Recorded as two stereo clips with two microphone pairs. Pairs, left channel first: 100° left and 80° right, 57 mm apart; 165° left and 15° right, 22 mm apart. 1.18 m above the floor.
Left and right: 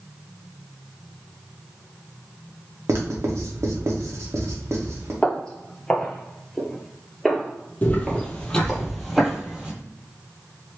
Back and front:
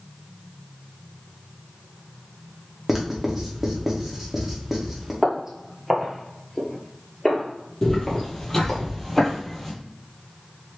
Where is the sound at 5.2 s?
40° left, 1.3 m; by 8.8 s 160° right, 1.7 m.